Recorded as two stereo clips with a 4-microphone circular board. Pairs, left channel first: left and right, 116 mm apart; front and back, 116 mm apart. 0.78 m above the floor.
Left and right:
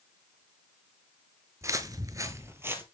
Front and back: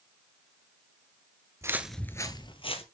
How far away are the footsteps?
About 0.9 m.